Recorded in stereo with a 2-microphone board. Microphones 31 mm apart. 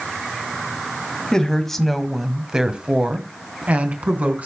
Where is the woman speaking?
20° left (ahead or behind), 1.7 m; by 4.5 s 55° right (ahead or behind), 2.5 m.